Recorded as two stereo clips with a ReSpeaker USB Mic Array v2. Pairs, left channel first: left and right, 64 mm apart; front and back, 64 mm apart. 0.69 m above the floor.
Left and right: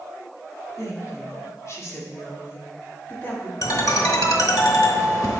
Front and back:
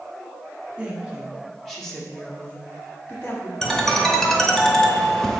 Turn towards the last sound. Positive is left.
turn(degrees=80)